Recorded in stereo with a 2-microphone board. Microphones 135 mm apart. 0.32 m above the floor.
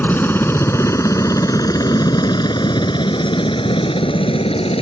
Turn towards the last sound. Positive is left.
turn(degrees=45)  # may be behind; listen again after turning